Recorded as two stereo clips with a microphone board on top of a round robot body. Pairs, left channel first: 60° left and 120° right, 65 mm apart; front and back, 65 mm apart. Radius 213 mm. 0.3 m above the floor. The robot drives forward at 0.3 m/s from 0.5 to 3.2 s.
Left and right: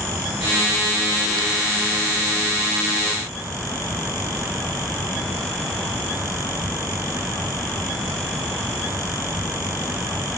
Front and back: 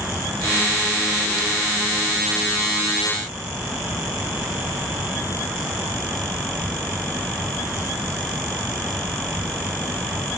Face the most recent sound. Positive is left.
No sound to turn to.